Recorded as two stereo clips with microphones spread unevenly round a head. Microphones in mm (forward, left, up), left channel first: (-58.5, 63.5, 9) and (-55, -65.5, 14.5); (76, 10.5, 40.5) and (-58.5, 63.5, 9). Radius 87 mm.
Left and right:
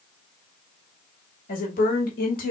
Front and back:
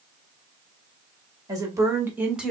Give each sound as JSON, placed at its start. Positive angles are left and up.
{"t": 1.5, "sound": "a woman speaking", "azimuth_deg": 95, "distance_m": 2.0}